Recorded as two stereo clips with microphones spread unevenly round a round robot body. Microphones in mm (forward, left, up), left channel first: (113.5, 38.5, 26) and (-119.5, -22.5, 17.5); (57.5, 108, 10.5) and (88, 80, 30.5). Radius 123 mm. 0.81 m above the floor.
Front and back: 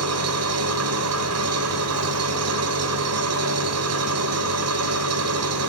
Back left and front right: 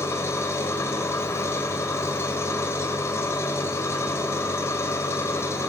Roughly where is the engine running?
Behind.